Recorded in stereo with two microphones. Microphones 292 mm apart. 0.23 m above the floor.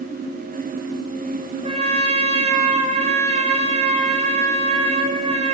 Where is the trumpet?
20° right (ahead or behind), 2 m.